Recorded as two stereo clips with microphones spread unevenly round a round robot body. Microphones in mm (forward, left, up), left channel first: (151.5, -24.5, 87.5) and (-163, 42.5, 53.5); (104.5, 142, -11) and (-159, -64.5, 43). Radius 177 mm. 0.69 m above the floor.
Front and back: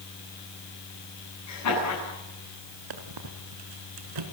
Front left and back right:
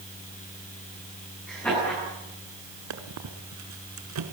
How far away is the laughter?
About 10 m.